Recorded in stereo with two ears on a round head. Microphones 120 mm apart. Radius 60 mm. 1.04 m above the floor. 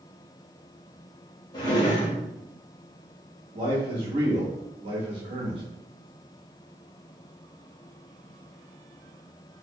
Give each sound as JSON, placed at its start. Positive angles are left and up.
{"t": 1.5, "sound": "a drawer", "side_deg": 35, "distance_m": 0.9}
{"t": 3.5, "sound": "a man speaking", "side_deg": -40, "distance_m": 1.1}